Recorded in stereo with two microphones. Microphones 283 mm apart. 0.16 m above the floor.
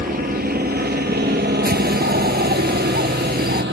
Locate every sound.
0.0 s a helicopter: 30° right (ahead or behind); by 3.7 s 40° right (ahead or behind)
1.6 s a bird: 35° right (ahead or behind)